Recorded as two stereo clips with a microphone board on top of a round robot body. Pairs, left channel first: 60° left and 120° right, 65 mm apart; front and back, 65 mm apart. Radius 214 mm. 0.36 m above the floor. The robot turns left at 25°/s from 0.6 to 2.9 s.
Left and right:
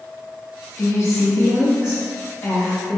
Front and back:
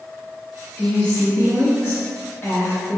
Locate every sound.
0.8 s a woman speaking: 75° left, 1.1 m; by 3.0 s 20° left, 1.1 m